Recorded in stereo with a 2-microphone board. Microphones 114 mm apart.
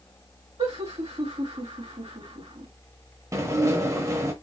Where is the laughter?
55° right (ahead or behind), 2.5 m.